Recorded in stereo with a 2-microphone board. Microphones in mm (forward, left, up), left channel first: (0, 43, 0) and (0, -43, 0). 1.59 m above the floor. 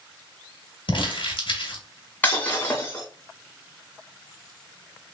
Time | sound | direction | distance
0.9 | crumpling | 65° left (ahead or behind) | 1.6 m
2.2 | breaking glass | 20° left (ahead or behind) | 2 m